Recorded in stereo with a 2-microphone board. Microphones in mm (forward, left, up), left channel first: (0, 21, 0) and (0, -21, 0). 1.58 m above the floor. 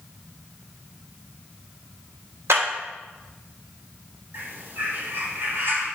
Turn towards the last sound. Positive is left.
turn(degrees=-60)  # may be behind; listen again after turning